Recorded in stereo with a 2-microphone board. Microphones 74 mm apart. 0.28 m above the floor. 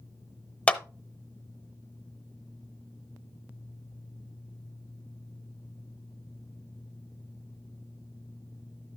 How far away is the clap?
About 0.9 m.